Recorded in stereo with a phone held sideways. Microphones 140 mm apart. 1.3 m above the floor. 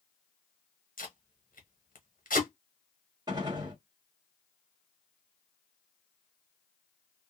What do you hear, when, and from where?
1.0 s tape being pulled: 80° left, 1.2 m
3.3 s a gunshot: 30° right (ahead or behind), 1.3 m